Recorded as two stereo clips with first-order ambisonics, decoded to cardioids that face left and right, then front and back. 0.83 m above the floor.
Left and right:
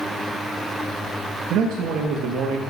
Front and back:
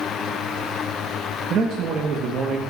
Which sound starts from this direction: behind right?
A man speaking, at 1.5 s.